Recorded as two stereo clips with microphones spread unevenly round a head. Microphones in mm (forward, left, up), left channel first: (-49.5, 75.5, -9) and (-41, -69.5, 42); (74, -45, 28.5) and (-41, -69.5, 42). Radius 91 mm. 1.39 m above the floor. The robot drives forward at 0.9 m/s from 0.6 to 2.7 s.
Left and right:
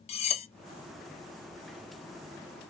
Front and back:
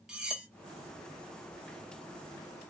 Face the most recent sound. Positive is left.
turn(degrees=175)